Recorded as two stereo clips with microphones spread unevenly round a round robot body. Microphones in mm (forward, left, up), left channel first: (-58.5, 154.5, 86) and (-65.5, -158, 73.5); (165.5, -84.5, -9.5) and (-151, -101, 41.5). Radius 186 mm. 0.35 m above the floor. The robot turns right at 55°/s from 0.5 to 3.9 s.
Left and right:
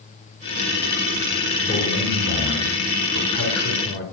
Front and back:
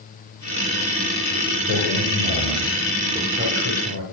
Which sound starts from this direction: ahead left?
A man speaking, at 1.7 s.